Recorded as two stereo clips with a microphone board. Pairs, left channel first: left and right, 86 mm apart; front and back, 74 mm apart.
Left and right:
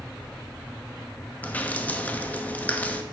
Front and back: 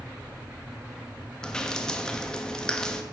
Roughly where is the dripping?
Ahead left.